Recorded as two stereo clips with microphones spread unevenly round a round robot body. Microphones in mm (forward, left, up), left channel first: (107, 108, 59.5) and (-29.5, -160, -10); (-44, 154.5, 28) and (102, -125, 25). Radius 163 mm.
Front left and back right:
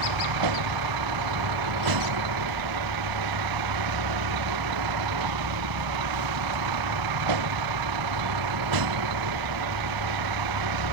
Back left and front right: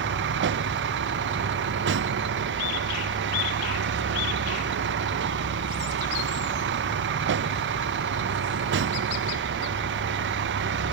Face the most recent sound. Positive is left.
turn(degrees=-120)